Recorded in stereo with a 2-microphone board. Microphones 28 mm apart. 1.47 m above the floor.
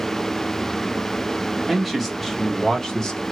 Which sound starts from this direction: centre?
A man speaking, at 1.7 s.